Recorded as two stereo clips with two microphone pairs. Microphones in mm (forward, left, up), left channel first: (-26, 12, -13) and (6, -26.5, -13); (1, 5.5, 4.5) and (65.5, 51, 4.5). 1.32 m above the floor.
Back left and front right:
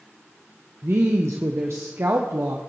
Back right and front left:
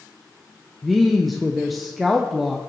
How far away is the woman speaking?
About 0.9 m.